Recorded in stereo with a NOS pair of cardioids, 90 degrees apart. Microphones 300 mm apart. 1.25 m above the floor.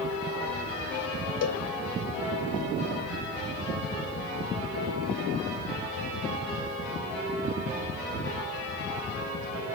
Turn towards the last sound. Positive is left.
turn(degrees=60)